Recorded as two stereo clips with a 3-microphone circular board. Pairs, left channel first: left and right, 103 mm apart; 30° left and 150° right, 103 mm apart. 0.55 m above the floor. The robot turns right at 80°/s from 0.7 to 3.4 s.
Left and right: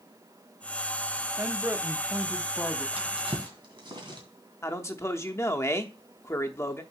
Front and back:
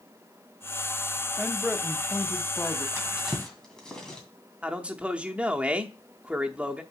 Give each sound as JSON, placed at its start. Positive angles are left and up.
{"t": 1.4, "sound": "a man speaking", "azimuth_deg": -85, "distance_m": 0.6}
{"t": 3.0, "sound": "a drawer", "azimuth_deg": -90, "distance_m": 2.0}
{"t": 4.6, "sound": "a man speaking", "azimuth_deg": 140, "distance_m": 0.8}